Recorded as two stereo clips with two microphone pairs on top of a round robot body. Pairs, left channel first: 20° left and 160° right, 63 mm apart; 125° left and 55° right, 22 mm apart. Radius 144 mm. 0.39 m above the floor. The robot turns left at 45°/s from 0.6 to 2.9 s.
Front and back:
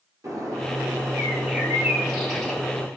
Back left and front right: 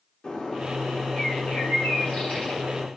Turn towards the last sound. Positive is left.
turn(degrees=70)